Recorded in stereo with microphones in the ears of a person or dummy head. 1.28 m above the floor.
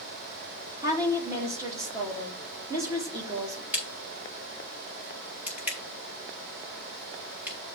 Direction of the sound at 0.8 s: 20° right (ahead or behind).